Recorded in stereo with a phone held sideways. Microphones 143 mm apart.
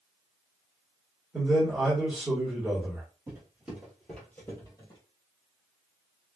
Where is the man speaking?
10° right (ahead or behind), 1.3 m.